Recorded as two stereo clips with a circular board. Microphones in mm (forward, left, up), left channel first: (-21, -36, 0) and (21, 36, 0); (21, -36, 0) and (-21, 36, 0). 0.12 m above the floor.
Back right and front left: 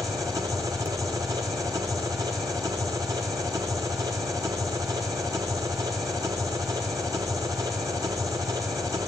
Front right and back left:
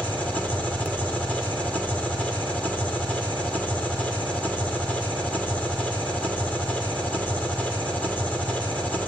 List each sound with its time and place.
0.0 s an engine running: 10° left, 3 m